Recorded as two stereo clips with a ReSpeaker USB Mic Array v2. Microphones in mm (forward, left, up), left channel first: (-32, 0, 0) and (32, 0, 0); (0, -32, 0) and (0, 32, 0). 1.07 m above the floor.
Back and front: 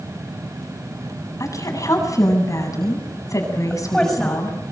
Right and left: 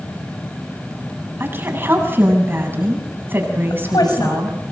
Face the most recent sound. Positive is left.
turn(degrees=-100)